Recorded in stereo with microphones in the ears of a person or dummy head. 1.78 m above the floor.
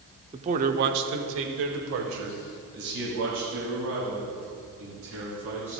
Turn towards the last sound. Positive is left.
turn(degrees=-70)  # may be behind; listen again after turning